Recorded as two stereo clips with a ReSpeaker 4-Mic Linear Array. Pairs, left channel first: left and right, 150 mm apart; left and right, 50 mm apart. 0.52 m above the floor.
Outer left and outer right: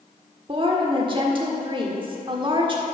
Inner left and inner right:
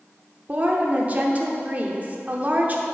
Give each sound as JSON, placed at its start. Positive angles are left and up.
{"t": 0.5, "sound": "a woman speaking", "side_deg": -35, "distance_m": 1.2}